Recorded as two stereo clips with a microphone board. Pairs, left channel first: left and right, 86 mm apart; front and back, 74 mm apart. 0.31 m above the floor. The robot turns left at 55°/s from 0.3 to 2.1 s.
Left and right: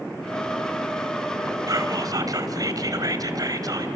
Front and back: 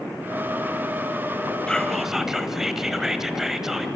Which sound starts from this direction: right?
Whispering, at 1.7 s.